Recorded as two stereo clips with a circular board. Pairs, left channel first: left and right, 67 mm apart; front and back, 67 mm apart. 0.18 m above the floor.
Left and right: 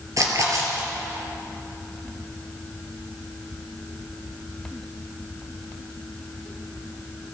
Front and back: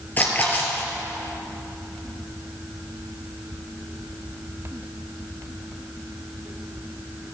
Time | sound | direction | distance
0.2 | a splash | 60° right | 3 m